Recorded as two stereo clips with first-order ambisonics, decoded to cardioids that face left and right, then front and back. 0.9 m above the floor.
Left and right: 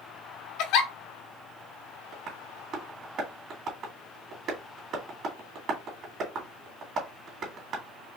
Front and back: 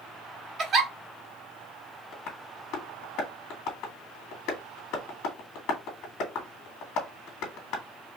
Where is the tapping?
35° right, 1.7 m.